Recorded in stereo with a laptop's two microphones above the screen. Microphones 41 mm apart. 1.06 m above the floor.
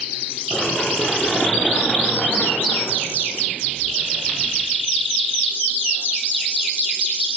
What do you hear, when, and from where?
0.5 s running footsteps: 30° left (ahead or behind), 7 m; by 4.5 s 50° left (ahead or behind), 6.5 m